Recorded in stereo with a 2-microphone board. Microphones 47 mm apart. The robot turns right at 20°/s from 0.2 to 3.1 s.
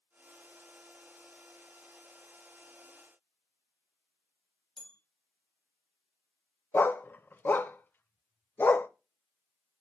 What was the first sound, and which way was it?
A bell, 15° left (ahead or behind).